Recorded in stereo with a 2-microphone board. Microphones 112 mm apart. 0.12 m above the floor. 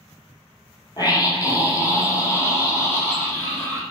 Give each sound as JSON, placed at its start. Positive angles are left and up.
{"t": 1.0, "sound": "a scream", "side_deg": 35, "distance_m": 3.5}